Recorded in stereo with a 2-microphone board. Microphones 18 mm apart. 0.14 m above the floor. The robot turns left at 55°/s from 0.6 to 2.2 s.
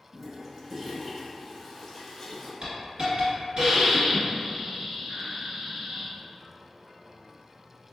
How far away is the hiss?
About 1.5 m.